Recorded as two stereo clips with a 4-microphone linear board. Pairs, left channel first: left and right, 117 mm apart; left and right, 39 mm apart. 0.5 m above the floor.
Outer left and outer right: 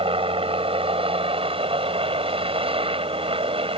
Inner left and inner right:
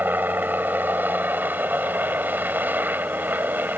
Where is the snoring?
I don't hear snoring.